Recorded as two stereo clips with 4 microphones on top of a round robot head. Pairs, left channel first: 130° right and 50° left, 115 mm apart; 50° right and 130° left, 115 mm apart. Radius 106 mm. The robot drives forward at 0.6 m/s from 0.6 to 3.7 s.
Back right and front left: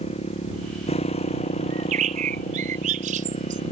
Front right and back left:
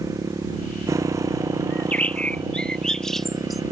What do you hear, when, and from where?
0.0 s a motorcycle: 165° right
1.7 s a bird: 30° left; by 3.6 s 40° left